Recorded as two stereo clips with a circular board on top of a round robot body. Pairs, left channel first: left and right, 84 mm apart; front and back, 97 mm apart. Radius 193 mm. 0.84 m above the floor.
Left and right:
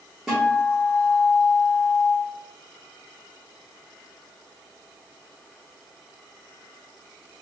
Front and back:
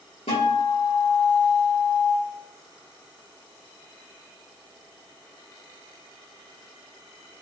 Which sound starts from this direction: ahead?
A guitar, at 0.3 s.